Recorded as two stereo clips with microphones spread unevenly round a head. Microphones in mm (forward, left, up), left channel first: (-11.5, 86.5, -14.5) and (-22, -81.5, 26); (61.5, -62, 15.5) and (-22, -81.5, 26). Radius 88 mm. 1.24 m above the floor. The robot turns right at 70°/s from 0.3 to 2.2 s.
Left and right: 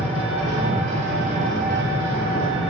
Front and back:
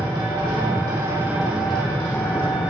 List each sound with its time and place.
0.0 s an engine running: 170° right, 1.9 m; by 2.7 s 35° right, 1.9 m